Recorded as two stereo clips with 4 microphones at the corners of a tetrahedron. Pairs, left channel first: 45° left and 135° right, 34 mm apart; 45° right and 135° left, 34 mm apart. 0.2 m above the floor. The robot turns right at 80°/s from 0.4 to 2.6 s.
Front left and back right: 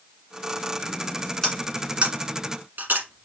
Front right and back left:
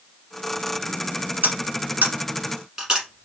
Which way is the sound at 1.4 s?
120° left.